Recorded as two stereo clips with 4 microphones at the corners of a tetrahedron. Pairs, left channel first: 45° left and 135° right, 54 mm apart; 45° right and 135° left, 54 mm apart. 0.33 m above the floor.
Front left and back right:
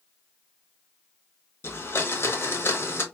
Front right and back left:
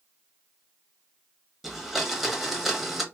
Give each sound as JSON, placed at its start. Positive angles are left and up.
{"t": 1.6, "sound": "a blender", "azimuth_deg": 50, "distance_m": 0.7}